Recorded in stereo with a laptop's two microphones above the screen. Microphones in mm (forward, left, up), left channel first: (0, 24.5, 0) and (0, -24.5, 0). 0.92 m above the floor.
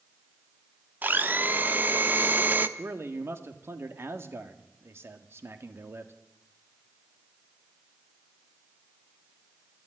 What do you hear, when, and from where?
1.0 s a blender: 40° right (ahead or behind), 0.8 m
2.8 s a man speaking: 55° right (ahead or behind), 2.0 m